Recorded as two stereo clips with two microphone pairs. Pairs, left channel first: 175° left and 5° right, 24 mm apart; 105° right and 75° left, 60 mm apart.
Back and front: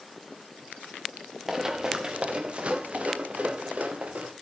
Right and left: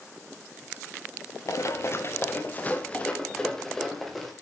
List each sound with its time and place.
1.5 s running footsteps: 75° right, 1.9 m; by 4.3 s 15° right, 3.5 m